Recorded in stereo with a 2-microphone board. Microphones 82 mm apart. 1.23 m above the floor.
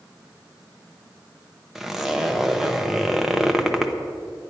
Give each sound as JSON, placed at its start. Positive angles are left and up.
{"t": 1.8, "sound": "a zipper", "side_deg": -5, "distance_m": 0.8}